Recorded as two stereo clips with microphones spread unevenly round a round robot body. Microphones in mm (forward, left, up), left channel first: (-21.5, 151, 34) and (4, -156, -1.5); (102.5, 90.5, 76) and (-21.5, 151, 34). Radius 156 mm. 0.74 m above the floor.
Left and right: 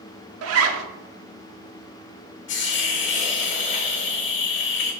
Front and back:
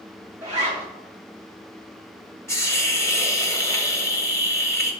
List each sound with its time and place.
0.4 s a zipper: 135° right, 0.7 m
2.5 s a hiss: 40° left, 1.4 m